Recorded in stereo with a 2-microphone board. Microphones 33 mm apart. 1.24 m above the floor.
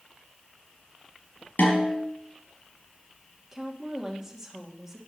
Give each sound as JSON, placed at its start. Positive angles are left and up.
{"t": 1.6, "sound": "a snare drum", "side_deg": 75, "distance_m": 4.5}
{"t": 3.5, "sound": "a woman speaking", "side_deg": -15, "distance_m": 2.0}